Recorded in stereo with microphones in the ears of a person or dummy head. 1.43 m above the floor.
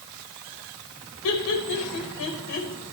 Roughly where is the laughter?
Left.